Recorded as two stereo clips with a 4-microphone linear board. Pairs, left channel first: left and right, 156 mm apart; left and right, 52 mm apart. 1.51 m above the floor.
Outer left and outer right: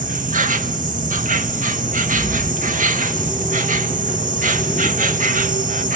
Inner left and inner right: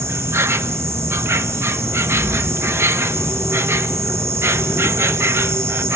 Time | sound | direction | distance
0.0 | an insect | 55° right (ahead or behind) | 1.4 m